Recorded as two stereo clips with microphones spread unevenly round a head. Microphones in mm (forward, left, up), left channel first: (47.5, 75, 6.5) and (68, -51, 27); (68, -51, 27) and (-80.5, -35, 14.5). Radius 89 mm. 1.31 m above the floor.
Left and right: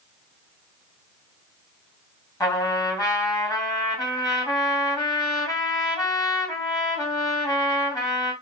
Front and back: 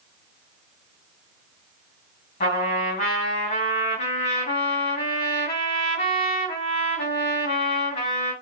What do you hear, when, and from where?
2.4 s a trumpet: 35° left, 1.6 m